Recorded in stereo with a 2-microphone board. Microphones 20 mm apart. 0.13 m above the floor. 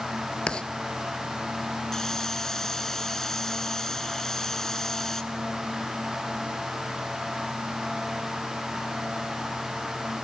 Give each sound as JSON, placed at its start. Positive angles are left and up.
{"t": 0.5, "sound": "writing", "side_deg": 60, "distance_m": 0.9}
{"t": 1.9, "sound": "a hiss", "side_deg": 25, "distance_m": 1.6}